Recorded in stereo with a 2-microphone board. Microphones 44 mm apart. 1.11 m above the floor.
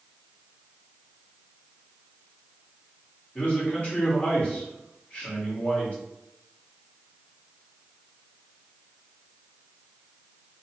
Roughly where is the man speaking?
Left.